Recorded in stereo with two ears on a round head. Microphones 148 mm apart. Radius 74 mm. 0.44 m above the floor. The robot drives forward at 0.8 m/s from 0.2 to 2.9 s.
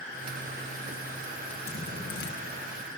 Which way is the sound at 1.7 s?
75° left (ahead or behind).